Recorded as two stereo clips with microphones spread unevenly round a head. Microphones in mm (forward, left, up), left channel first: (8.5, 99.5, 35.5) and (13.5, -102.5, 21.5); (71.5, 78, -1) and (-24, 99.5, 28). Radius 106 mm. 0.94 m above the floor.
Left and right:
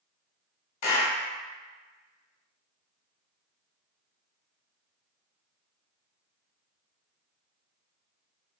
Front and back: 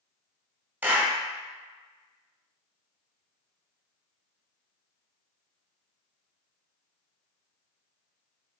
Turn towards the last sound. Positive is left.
turn(degrees=95)